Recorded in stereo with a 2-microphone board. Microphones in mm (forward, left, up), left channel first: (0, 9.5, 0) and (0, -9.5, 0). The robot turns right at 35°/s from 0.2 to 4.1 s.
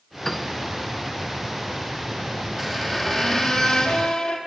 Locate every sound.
0.2 s a piano: 15° left (ahead or behind), 1.1 m; by 0.5 s 10° left (ahead or behind), 1.1 m
2.6 s a squeak: 10° left, 3 m; by 4.4 s 60° left, 3 m